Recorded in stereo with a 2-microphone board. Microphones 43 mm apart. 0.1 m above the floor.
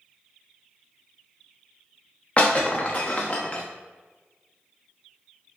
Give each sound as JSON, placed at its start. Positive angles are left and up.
{"t": 2.4, "sound": "breaking glass", "side_deg": 30, "distance_m": 0.9}